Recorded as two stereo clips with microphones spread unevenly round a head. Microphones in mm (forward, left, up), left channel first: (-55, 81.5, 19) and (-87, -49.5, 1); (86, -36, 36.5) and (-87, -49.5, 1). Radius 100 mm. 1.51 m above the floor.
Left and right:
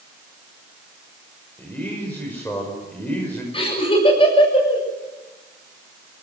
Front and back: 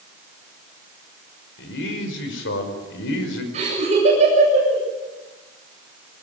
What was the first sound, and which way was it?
A man speaking, 5° right.